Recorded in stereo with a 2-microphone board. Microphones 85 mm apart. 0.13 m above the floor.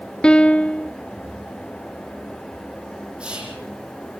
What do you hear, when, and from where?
0.2 s a piano: 10° left (ahead or behind), 0.7 m
3.2 s whispering: 10° right (ahead or behind), 6 m